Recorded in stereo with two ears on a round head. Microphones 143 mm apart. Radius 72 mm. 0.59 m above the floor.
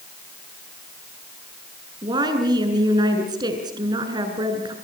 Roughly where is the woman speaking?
Right.